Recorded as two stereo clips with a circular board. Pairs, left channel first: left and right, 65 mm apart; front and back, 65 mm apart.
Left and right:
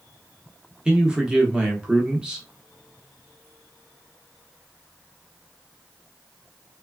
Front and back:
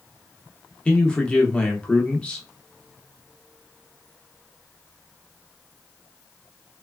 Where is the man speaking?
40° right, 0.7 m.